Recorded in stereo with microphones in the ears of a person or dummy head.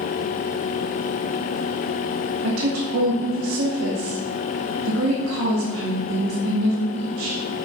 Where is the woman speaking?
80° right, 0.9 m.